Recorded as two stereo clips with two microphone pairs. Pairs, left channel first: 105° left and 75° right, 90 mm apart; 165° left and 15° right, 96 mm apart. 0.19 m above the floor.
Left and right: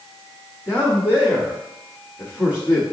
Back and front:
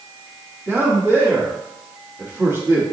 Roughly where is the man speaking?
Ahead.